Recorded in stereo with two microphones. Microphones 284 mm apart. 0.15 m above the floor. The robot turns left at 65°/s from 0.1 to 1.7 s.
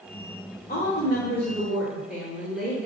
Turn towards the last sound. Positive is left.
turn(degrees=-5)